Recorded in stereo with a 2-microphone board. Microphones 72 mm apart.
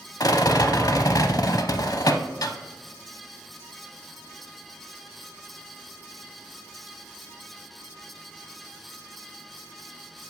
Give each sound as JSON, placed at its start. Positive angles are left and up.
{"t": 0.2, "sound": "a rattle", "side_deg": 55, "distance_m": 0.6}